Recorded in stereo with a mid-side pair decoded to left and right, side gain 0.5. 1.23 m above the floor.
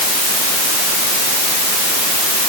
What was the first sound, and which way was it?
Only background noise.